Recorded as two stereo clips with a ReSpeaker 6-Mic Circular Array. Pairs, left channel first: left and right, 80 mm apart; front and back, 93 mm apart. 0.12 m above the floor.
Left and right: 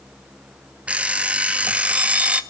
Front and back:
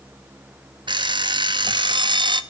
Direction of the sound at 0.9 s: 160° right.